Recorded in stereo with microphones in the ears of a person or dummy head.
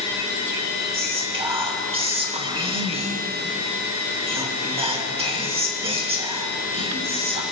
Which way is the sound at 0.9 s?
25° right (ahead or behind).